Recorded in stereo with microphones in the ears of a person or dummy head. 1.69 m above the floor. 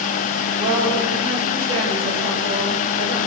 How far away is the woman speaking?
About 8 m.